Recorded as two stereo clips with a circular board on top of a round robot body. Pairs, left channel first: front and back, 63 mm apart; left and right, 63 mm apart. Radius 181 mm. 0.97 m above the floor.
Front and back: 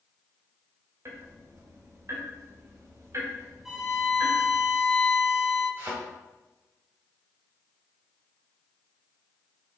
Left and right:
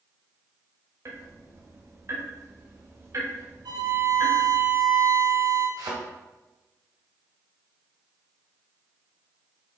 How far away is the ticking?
About 1.6 m.